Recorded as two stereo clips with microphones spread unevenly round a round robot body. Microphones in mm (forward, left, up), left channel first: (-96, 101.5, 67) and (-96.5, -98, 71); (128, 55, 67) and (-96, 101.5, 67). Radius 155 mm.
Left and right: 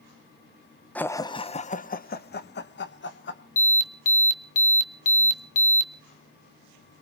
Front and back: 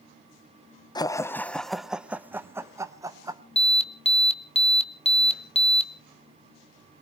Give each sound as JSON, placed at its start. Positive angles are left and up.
{"t": 0.9, "sound": "laughter", "azimuth_deg": 25, "distance_m": 0.7}
{"t": 3.6, "sound": "an alarm", "azimuth_deg": 45, "distance_m": 1.5}